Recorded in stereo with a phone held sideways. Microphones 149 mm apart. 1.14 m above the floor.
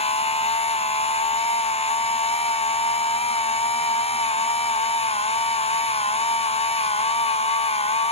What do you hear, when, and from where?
0.0 s a machine running: 45° left (ahead or behind), 0.8 m